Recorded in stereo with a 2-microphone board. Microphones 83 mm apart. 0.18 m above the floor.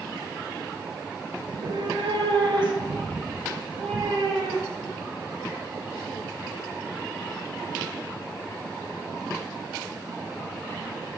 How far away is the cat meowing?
About 0.5 m.